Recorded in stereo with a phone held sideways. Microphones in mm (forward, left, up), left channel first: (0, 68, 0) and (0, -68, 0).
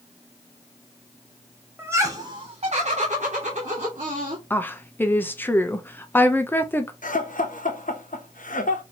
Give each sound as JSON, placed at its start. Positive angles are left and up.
{"t": 1.8, "sound": "laughter", "side_deg": -15, "distance_m": 0.7}
{"t": 4.5, "sound": "a woman speaking", "side_deg": 15, "distance_m": 0.6}
{"t": 7.0, "sound": "laughter", "side_deg": 75, "distance_m": 0.9}